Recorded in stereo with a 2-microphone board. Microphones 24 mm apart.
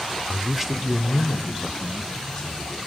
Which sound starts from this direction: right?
A man speaking, at 0.3 s.